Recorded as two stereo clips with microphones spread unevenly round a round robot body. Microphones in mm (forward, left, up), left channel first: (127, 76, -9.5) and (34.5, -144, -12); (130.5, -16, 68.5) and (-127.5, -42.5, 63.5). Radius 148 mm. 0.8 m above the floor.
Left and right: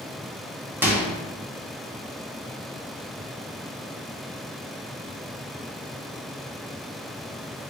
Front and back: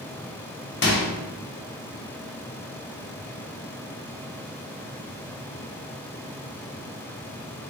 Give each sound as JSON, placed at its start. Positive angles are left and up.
{"t": 0.8, "sound": "a microwave", "azimuth_deg": -35, "distance_m": 1.3}